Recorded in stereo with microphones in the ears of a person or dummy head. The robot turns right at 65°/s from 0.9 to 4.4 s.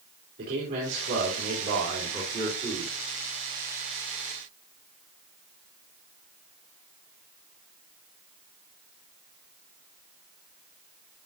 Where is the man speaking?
140° right, 3 m; by 3.0 s 10° right, 3 m.